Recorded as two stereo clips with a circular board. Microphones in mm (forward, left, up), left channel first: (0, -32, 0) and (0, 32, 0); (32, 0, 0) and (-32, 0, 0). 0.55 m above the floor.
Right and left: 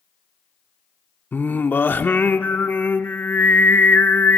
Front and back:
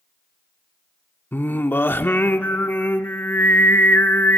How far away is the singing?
About 1.0 m.